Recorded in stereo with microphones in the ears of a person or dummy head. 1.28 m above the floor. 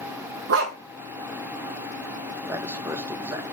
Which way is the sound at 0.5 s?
65° right (ahead or behind).